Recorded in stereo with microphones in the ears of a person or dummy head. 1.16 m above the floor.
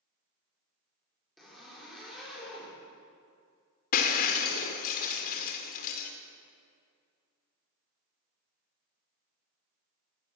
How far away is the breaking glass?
About 1.5 m.